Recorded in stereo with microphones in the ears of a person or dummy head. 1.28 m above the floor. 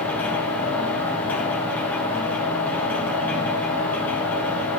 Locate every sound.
0.0 s a machine running: 10° left (ahead or behind), 0.7 m